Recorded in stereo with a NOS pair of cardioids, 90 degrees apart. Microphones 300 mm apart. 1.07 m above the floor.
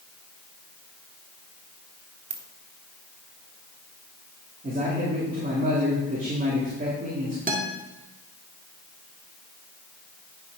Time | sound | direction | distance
2.3 | a ringtone | 60° right | 1.4 m
4.6 | a man speaking | 25° right | 3 m
7.5 | a guitar | 30° right | 1.7 m